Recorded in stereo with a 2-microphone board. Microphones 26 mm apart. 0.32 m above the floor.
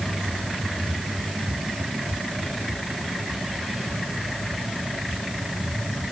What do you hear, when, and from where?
Only background noise.